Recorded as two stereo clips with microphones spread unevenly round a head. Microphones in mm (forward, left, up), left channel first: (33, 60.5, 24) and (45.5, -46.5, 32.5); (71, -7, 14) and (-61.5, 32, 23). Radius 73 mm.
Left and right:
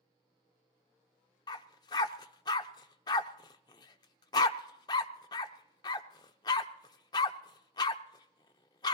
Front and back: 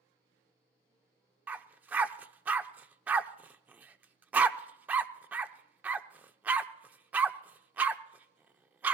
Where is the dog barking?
105° left, 0.5 m.